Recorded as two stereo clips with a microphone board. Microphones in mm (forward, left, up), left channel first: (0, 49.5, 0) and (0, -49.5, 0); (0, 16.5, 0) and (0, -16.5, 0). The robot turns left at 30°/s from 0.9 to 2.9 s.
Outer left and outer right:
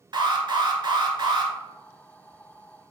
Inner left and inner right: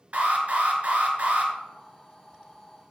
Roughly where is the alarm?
Right.